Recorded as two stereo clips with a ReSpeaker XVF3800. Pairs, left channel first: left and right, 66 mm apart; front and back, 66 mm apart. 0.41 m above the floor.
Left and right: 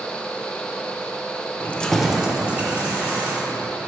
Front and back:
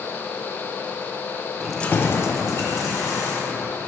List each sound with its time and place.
1.6 s keys jangling: 110° left, 0.5 m; by 3.7 s 25° right, 2.5 m